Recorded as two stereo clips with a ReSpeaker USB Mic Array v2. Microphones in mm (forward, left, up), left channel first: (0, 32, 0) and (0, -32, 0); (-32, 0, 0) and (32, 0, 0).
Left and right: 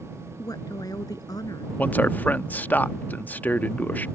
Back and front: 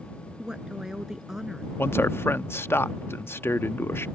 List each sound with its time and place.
0.4 s a woman speaking: 80° left; by 1.7 s 85° left
1.8 s a man speaking: 145° left